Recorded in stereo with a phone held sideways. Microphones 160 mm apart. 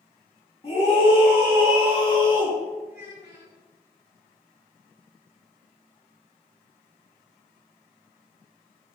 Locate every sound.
0.6 s a scream: 35° left (ahead or behind), 2.5 m; by 2.6 s 30° left (ahead or behind), 3.5 m
2.9 s a child speaking: 80° left, 2 m